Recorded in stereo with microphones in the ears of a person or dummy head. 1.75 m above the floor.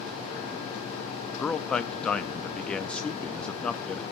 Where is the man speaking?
10° left (ahead or behind), 0.6 m.